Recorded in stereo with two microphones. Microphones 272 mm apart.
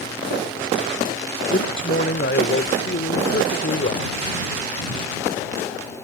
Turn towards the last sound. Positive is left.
turn(degrees=45)  # may be behind; listen again after turning